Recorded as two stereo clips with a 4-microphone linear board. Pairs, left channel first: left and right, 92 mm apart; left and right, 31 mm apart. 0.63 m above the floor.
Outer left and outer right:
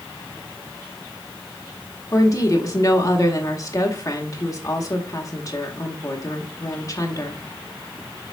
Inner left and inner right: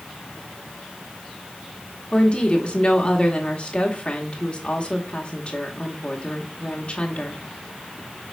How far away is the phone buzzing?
No phone buzzing in this recording.